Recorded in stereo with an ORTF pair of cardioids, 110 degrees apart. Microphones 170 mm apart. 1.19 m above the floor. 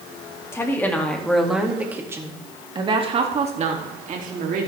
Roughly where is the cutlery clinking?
No cutlery clinking in this recording.